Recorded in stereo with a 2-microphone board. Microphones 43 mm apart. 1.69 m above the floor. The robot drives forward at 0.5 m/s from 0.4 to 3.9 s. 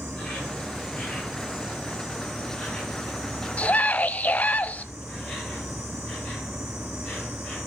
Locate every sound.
0.0 s an insect: 20° left (ahead or behind), 6.5 m; by 7.7 s 15° left (ahead or behind), 8 m
3.6 s a scream: 30° left (ahead or behind), 0.6 m; by 4.8 s 35° left (ahead or behind), 0.6 m